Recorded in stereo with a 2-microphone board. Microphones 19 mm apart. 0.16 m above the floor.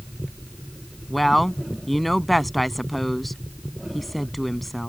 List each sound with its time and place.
1.1 s a woman speaking: 5° left (ahead or behind)